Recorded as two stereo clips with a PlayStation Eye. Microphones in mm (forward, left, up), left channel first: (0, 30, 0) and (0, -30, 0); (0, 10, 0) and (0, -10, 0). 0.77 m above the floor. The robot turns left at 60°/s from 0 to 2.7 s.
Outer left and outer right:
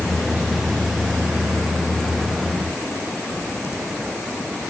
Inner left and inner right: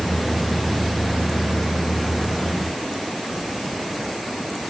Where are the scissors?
I don't hear scissors.